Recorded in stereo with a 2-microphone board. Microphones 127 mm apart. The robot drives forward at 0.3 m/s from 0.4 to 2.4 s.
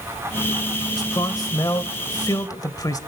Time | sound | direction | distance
1.0 | a man speaking | 30° left (ahead or behind) | 1.1 m